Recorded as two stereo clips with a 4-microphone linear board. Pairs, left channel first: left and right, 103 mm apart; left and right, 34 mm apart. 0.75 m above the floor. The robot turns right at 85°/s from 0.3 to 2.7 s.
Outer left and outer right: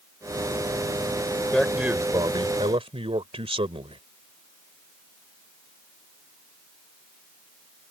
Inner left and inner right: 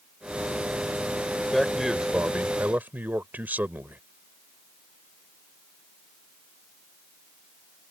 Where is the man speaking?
165° left; by 4.0 s 90° right.